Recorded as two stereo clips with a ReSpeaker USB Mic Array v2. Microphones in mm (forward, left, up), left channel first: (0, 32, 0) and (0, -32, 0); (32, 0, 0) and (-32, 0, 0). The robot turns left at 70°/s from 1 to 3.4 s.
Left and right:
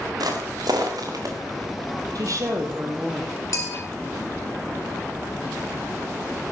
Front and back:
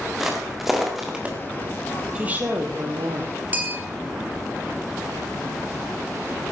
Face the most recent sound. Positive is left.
turn(degrees=120)